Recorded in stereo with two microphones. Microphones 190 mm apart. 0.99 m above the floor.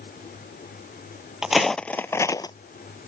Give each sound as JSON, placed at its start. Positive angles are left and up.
{"t": 1.4, "sound": "footsteps", "side_deg": -5}